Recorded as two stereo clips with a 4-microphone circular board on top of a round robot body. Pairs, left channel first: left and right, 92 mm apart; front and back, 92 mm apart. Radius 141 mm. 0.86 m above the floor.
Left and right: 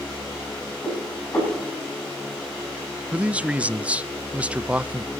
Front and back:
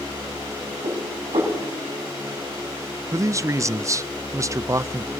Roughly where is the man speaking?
Behind right.